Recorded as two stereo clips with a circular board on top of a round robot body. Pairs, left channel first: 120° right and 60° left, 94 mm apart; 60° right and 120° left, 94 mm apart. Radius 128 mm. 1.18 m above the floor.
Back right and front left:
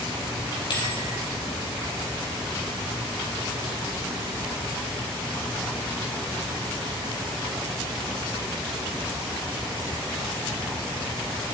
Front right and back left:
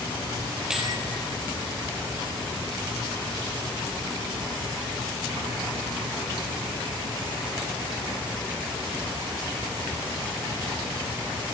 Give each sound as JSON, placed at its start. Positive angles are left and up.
{"t": 0.7, "sound": "a bell", "azimuth_deg": -155, "distance_m": 5.0}